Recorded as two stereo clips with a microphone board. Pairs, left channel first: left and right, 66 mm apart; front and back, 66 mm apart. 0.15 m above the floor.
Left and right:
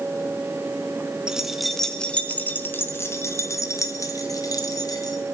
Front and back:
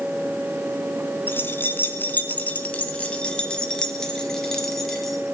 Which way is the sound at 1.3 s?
20° right.